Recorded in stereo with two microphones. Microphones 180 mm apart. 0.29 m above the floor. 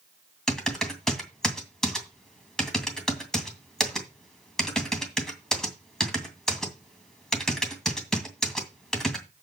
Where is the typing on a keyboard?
5° left (ahead or behind), 2.5 m.